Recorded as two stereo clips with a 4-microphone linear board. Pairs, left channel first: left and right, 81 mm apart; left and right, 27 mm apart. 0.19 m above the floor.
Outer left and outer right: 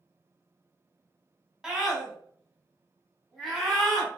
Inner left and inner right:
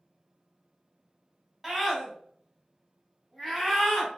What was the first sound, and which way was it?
A scream, 10° right (ahead or behind).